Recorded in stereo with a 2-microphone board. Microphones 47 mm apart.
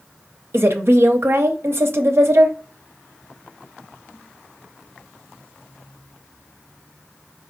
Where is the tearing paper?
I don't hear tearing paper.